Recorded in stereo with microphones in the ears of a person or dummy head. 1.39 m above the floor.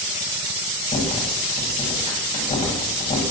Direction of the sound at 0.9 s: 30° left (ahead or behind).